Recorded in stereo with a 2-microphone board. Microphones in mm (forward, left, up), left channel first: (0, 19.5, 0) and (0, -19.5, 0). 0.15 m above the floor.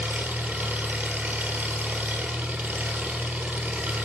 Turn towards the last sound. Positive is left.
turn(degrees=-40)  # may be behind; listen again after turning